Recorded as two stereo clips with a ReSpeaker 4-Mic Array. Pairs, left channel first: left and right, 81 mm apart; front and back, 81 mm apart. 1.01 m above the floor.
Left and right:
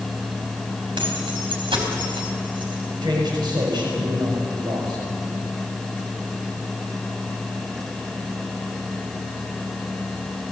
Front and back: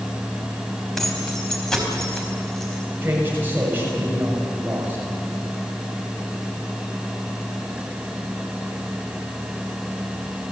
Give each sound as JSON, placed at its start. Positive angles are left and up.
{"t": 1.0, "sound": "keys jangling", "azimuth_deg": -85, "distance_m": 4.5}
{"t": 3.0, "sound": "a man speaking", "azimuth_deg": -115, "distance_m": 6.0}